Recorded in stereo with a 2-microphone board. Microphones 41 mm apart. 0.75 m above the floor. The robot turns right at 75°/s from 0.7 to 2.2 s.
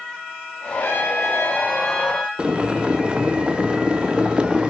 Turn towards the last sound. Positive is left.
turn(degrees=-25)  # may be behind; listen again after turning